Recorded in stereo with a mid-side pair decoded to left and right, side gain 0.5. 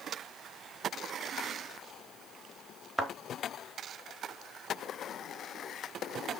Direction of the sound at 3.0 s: 15° right.